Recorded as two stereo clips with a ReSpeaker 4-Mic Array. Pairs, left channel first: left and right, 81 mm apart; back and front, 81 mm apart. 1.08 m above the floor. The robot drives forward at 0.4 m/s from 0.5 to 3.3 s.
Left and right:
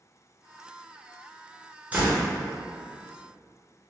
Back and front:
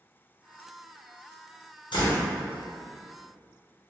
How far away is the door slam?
About 0.7 m.